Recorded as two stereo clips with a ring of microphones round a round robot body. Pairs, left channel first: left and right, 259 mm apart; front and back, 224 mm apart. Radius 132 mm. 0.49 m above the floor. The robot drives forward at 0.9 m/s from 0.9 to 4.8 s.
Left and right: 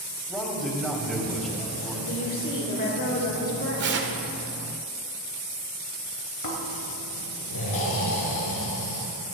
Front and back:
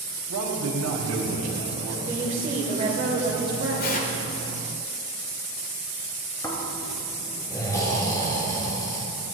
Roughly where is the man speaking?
Behind.